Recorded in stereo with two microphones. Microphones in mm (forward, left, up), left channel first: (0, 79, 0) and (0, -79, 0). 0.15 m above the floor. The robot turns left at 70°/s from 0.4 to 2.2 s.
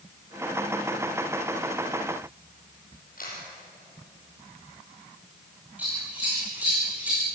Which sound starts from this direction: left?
A camera shutter, at 3.2 s.